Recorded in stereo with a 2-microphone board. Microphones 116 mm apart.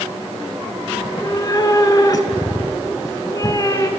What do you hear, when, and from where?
1.0 s a cat meowing: 35° left (ahead or behind), 0.7 m